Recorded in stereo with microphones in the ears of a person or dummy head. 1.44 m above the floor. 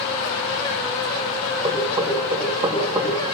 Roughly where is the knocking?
Right.